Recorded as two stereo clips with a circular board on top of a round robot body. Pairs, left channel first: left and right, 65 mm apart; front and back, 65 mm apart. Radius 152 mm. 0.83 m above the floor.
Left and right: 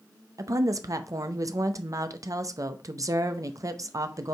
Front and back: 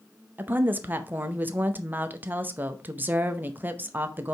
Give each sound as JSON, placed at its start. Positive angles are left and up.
{"t": 0.4, "sound": "a woman speaking", "azimuth_deg": -120, "distance_m": 0.8}